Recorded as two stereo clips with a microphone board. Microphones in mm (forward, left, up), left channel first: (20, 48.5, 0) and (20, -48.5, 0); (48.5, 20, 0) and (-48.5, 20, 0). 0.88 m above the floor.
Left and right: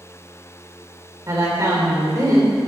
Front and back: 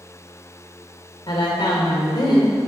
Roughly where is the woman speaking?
Ahead right.